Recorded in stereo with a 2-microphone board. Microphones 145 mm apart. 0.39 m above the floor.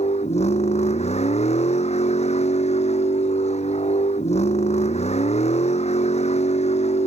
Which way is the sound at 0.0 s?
50° left (ahead or behind).